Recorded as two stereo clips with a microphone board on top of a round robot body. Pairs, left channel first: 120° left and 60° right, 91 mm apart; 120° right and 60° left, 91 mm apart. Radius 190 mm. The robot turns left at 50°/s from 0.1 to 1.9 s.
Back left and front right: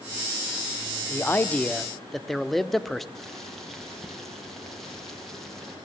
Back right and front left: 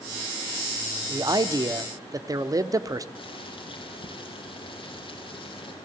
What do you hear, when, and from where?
1.1 s a man speaking: 70° left, 1.7 m; by 3.0 s 30° left, 1.7 m
3.1 s boiling: 150° right, 5.5 m